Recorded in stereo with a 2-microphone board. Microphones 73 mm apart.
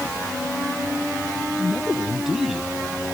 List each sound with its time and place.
1.6 s a man speaking: 5° right (ahead or behind)